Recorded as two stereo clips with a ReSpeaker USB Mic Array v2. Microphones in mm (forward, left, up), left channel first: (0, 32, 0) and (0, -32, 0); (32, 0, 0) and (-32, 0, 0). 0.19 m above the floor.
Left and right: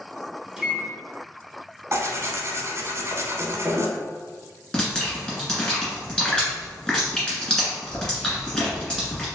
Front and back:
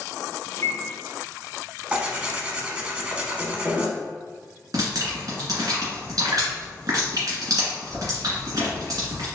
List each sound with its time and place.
0.6 s a microwave: 20° right, 1.2 m
1.9 s tearing paper: 115° right, 0.7 m
4.7 s dripping: 165° left, 1.9 m